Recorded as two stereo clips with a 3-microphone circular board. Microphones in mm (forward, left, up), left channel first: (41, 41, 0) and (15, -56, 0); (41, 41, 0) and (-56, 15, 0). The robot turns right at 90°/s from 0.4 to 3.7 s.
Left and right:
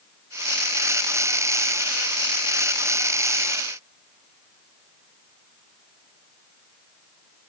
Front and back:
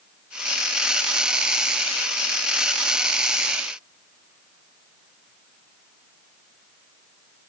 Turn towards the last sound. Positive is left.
No sound to turn to.